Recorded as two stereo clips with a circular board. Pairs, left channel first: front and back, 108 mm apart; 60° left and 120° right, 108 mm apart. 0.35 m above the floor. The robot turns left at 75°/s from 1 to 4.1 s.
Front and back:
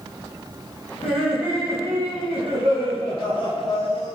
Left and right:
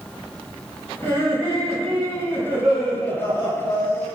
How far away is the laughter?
About 1.8 m.